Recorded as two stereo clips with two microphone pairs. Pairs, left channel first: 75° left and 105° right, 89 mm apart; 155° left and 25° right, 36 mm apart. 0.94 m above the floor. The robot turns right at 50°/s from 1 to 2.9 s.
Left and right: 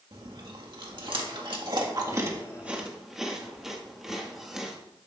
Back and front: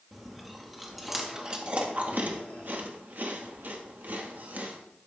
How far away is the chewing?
About 1.7 m.